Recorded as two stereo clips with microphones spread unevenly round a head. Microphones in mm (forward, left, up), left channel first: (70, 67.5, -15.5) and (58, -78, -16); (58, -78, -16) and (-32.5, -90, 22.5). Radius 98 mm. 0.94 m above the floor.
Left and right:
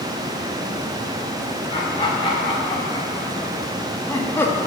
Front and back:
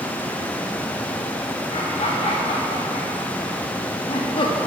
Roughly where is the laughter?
Ahead left.